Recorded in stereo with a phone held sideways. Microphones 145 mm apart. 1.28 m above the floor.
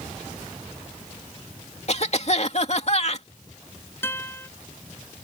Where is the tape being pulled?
I don't hear tape being pulled.